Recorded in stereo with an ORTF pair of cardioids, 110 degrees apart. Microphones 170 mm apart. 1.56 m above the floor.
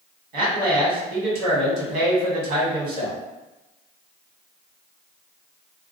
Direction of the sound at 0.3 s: 70° right.